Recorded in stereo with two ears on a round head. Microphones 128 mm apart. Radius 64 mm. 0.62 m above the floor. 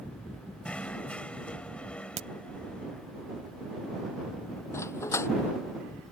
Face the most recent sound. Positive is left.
turn(degrees=20)  # may be behind; listen again after turning